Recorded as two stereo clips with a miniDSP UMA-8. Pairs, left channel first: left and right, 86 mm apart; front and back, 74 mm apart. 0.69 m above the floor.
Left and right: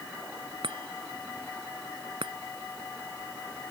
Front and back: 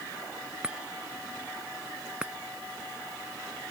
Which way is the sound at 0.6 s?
105° right.